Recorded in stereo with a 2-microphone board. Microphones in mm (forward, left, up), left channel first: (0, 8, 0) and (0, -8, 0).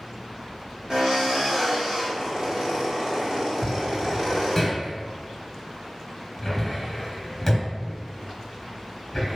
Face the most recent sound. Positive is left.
turn(degrees=10)  # may be behind; listen again after turning